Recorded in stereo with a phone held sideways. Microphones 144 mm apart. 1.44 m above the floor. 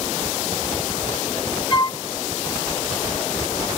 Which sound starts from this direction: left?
A flute, at 1.7 s.